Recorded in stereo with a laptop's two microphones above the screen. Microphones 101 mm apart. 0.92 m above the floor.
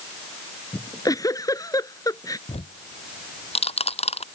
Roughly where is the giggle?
Left.